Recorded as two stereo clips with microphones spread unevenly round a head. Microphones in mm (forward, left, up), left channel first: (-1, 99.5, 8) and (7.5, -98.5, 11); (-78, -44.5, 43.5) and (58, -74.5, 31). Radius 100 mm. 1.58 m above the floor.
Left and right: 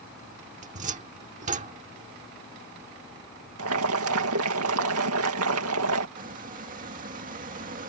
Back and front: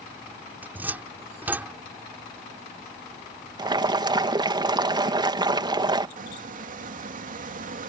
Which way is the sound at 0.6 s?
90° right.